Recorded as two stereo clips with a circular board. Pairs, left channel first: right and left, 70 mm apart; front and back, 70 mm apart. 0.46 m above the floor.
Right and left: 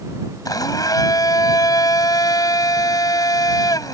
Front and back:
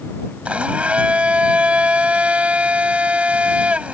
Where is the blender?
110° right.